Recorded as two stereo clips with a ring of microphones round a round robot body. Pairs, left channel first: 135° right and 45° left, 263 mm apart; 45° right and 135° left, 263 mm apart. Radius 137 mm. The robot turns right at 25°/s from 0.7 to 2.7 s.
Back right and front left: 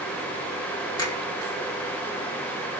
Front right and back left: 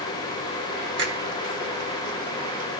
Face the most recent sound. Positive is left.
turn(degrees=-160)